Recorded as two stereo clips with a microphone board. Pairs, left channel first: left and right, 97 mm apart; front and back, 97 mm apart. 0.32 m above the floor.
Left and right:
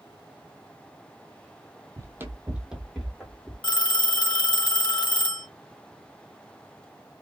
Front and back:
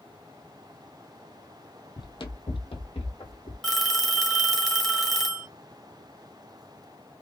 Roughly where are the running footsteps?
Ahead right.